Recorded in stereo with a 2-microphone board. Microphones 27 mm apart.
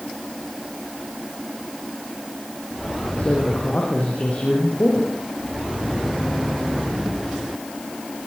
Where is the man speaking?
60° left (ahead or behind), 8.5 m.